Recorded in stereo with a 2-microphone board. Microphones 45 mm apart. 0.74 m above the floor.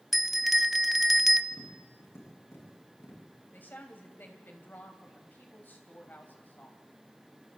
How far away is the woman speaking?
About 3.5 m.